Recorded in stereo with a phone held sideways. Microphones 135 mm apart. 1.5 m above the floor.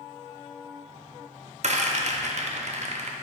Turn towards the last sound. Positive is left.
turn(degrees=-55)  # may be behind; listen again after turning